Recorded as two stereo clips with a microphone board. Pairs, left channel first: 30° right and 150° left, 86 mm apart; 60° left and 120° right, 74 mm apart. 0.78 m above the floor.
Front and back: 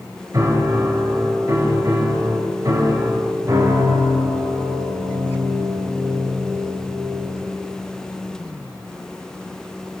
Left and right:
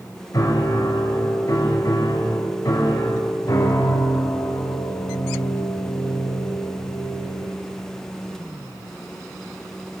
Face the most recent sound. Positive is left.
turn(degrees=100)